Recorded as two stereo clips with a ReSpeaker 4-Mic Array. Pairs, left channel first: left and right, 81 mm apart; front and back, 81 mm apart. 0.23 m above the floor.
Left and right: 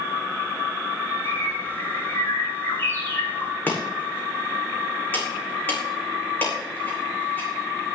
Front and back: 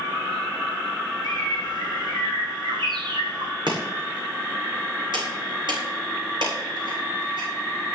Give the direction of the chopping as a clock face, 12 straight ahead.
7 o'clock.